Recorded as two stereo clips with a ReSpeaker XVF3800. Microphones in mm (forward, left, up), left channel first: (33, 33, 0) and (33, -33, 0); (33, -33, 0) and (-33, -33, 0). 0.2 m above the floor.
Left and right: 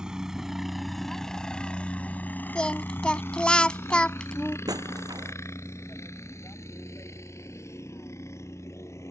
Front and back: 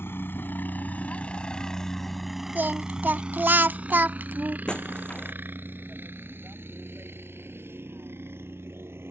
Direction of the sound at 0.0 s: 20° right.